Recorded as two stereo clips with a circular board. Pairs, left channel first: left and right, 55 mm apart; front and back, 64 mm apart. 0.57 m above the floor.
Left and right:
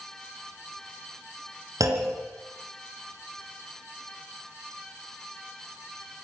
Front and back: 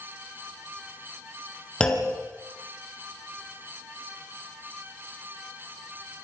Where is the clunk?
75° right, 3.5 m.